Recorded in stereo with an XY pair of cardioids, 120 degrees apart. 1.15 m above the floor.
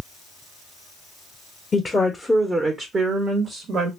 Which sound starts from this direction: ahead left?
A woman speaking, at 1.7 s.